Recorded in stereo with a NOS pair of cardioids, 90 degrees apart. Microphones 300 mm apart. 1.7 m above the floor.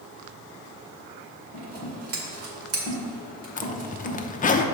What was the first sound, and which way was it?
Scissors, 50° right.